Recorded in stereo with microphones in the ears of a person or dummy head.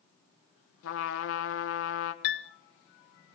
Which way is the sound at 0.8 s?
75° left (ahead or behind).